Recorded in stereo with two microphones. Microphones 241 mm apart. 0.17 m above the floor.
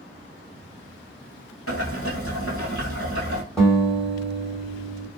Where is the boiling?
65° left (ahead or behind), 1.2 m.